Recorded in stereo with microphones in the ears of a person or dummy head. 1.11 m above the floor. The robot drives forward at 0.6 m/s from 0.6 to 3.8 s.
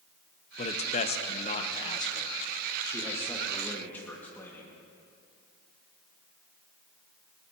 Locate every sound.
0.6 s a man speaking: 35° left (ahead or behind), 0.8 m; by 4.8 s 15° left (ahead or behind), 1.9 m